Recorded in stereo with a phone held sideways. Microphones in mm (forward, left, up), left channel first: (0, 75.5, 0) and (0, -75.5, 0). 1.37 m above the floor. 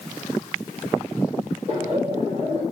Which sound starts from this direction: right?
Laughter, at 1.7 s.